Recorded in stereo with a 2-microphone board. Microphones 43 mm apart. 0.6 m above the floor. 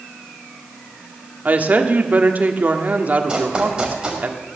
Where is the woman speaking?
40° right (ahead or behind), 1.6 m.